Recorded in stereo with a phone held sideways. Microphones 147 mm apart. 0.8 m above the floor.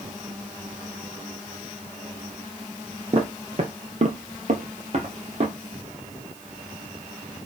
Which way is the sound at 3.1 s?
40° right (ahead or behind).